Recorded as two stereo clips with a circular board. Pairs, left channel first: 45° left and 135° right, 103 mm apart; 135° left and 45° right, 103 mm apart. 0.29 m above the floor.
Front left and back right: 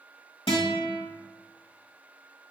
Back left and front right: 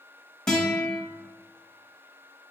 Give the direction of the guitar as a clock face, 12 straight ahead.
10 o'clock.